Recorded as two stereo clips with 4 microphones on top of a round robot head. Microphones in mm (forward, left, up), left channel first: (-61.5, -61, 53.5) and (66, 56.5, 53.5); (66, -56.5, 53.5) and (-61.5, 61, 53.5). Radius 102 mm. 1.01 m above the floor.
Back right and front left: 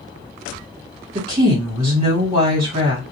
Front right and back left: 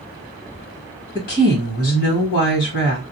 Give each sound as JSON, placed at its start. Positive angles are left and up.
{"t": 1.1, "sound": "a woman speaking", "azimuth_deg": -15, "distance_m": 1.7}